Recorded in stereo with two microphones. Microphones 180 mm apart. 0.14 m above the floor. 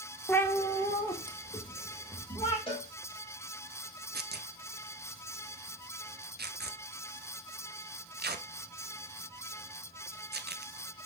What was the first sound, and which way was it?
A cat meowing, 10° left (ahead or behind).